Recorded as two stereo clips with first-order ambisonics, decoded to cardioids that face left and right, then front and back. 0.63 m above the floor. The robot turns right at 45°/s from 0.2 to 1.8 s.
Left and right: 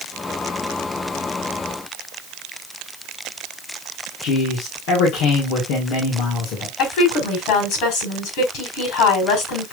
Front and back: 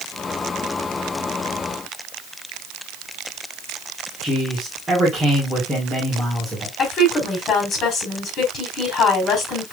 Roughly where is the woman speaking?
Ahead left.